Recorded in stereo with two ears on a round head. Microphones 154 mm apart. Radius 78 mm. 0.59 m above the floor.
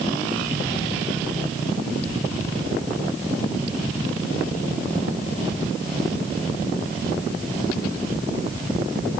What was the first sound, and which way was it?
Only background noise.